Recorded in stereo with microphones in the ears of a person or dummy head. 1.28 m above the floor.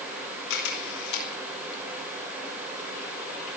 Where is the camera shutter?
75° left (ahead or behind), 3 m.